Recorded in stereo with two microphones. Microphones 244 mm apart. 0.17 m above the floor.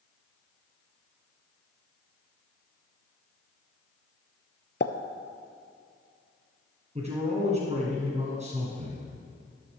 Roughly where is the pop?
Left.